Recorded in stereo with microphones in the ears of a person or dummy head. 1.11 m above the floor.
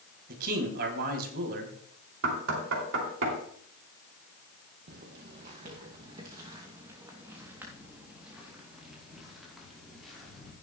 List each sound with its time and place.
0.3 s a man speaking: 55° right (ahead or behind), 3 m
2.2 s knocking: 75° right (ahead or behind), 3 m
4.9 s footsteps: 45° right (ahead or behind), 2 m; by 10.5 s centre (ahead or behind), 5.5 m